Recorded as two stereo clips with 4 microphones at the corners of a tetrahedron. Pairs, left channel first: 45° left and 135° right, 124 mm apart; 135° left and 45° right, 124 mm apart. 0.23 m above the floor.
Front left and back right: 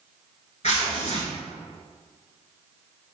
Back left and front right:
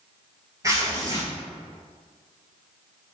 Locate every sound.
0.6 s tearing paper: 20° left, 0.8 m